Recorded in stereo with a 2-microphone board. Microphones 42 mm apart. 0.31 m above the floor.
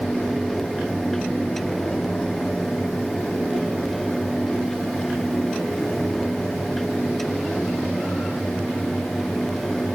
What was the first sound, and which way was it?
Only background noise.